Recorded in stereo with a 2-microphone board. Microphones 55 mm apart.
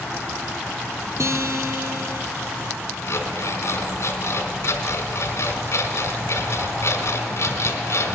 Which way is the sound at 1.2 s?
60° right (ahead or behind).